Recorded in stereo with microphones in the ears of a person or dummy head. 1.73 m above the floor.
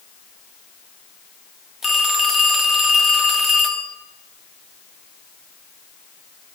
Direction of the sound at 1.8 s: Centre (ahead or behind).